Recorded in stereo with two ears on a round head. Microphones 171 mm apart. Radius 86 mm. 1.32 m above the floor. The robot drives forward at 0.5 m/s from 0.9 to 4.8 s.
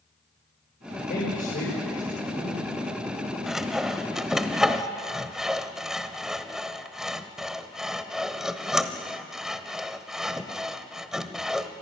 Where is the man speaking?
50° left (ahead or behind), 5 m; by 2.6 s 45° left (ahead or behind), 5.5 m.